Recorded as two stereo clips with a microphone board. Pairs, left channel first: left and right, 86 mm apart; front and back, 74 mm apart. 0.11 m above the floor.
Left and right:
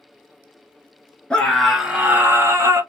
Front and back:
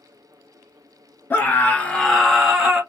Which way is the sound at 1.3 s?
25° left.